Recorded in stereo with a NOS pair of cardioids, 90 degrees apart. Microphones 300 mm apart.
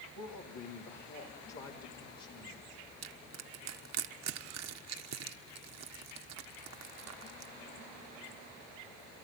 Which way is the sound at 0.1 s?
60° left.